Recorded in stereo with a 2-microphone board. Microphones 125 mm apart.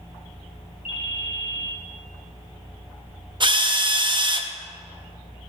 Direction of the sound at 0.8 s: 60° left (ahead or behind).